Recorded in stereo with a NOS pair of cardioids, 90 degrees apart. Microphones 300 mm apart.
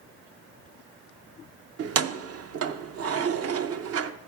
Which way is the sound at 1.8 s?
50° right.